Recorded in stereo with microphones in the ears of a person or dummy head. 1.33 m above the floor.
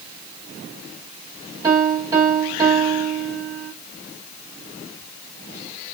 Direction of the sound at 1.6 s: 20° right (ahead or behind).